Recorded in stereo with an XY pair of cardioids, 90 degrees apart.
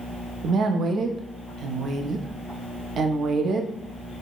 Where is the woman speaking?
65° right, 0.5 m.